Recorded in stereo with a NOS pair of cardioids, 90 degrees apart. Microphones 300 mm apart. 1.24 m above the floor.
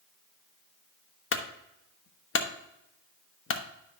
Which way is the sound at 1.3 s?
45° left.